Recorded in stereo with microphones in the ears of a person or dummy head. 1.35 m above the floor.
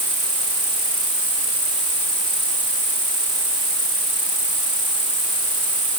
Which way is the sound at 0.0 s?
30° right (ahead or behind).